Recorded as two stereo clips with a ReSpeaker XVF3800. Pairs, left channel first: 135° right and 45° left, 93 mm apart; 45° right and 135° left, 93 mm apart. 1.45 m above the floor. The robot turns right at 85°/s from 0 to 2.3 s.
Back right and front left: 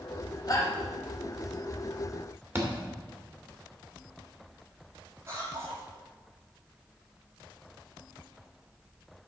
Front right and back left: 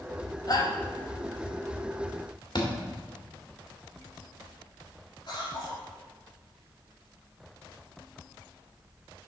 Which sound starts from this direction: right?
A shout, at 0.5 s.